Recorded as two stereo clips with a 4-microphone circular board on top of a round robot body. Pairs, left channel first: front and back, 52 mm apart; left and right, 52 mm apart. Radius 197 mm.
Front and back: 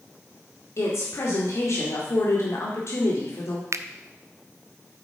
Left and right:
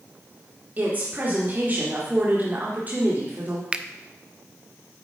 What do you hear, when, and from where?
0.8 s a woman speaking: 30° right, 2 m
3.7 s a finger snap: 160° right, 0.6 m